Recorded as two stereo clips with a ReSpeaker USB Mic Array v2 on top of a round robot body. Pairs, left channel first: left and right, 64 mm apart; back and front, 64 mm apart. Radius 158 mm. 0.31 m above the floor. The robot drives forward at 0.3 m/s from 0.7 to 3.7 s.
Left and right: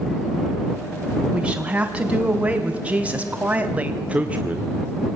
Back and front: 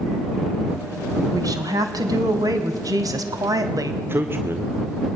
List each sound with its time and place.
1.3 s a woman speaking: 20° right, 3.5 m
4.0 s a man speaking: 30° right, 1.9 m